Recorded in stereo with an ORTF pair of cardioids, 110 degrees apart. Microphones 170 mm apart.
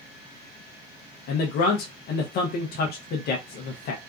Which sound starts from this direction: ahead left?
A man speaking, at 1.3 s.